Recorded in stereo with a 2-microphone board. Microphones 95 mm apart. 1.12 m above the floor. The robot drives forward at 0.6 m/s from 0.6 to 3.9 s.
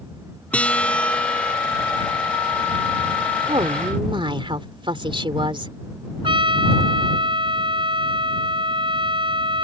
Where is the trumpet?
60° right (ahead or behind).